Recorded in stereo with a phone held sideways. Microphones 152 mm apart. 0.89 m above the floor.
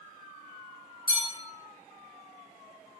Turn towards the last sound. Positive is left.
turn(degrees=35)  # may be behind; listen again after turning